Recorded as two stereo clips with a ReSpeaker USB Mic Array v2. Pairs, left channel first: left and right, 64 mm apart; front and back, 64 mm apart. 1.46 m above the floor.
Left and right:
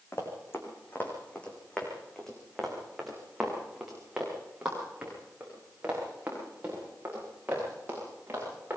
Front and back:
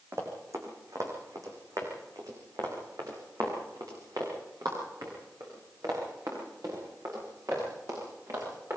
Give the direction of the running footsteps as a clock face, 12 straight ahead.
7 o'clock.